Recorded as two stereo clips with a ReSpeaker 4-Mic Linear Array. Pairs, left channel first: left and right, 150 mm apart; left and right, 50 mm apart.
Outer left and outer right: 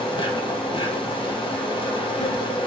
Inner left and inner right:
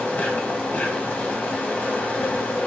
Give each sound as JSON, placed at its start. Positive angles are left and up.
{"t": 0.0, "sound": "an insect", "side_deg": 35, "distance_m": 1.8}